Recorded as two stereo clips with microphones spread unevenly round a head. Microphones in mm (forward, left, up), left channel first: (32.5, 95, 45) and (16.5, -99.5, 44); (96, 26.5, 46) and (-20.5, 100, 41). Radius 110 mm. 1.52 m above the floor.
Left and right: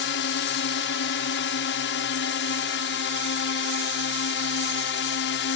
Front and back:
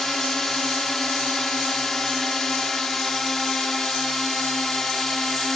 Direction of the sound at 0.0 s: 55° left.